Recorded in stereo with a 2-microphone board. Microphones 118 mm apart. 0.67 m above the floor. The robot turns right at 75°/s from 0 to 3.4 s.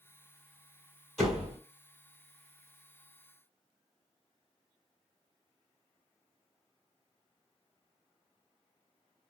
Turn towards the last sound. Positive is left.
turn(degrees=-15)